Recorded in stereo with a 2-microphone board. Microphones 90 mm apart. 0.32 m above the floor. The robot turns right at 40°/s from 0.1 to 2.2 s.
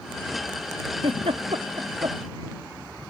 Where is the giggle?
85° right; by 2.2 s 45° right (ahead or behind).